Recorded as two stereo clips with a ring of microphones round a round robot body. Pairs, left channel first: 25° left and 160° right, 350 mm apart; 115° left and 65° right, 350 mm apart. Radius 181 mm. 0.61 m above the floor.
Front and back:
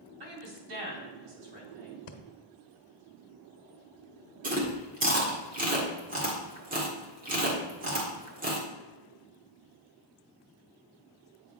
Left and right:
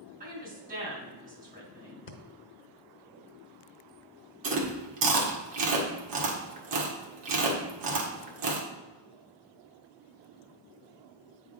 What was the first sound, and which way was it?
A woman speaking, 135° right.